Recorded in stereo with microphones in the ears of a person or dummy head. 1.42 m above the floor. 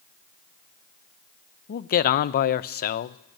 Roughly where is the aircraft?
No aircraft in this recording.